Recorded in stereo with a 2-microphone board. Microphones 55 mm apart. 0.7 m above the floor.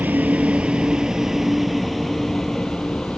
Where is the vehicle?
35° right (ahead or behind); by 3.2 s 15° left (ahead or behind).